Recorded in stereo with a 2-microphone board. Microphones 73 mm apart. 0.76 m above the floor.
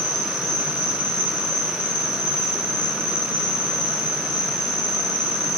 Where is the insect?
70° left (ahead or behind), 5 m.